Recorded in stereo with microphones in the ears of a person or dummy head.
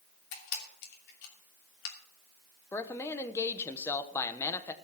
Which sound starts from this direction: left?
A camera shutter, at 0.3 s.